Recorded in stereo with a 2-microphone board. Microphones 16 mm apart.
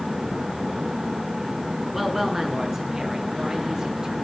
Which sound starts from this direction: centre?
A woman speaking, at 1.9 s.